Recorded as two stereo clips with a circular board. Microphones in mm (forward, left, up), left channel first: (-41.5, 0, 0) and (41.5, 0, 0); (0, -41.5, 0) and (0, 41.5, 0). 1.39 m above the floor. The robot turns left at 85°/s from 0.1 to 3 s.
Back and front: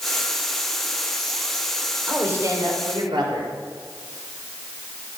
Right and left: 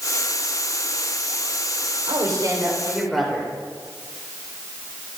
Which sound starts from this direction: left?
A woman speaking, at 2.1 s.